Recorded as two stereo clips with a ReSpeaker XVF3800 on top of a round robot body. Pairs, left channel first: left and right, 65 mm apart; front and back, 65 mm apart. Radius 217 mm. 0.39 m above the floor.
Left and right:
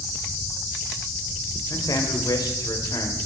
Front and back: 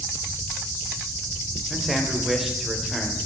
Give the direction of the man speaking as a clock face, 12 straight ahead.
9 o'clock.